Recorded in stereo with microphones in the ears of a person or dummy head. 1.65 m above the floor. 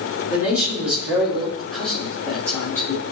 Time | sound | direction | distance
0.3 | a man speaking | 15° right (ahead or behind) | 3 m